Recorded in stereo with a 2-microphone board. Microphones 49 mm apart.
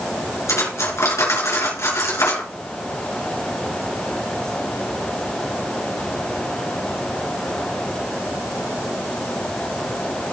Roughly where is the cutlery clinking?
Left.